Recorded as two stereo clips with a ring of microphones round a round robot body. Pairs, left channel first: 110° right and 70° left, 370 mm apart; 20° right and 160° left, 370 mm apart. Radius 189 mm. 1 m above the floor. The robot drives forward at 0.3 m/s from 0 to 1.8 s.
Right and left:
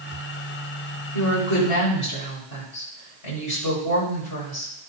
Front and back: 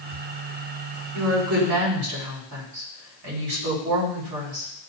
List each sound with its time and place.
1.1 s a woman speaking: 150° right, 4.5 m